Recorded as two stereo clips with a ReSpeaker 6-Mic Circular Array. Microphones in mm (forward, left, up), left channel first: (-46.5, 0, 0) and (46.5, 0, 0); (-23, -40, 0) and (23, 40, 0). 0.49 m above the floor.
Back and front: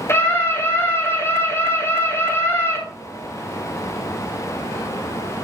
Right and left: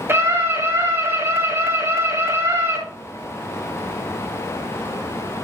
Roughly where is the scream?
Behind left.